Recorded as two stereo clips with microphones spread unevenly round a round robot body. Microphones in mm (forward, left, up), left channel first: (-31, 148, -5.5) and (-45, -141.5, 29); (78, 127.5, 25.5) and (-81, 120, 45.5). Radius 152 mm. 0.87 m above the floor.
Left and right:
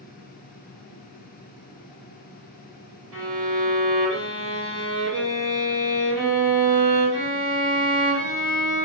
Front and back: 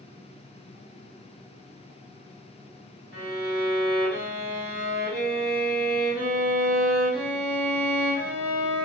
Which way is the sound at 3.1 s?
105° right.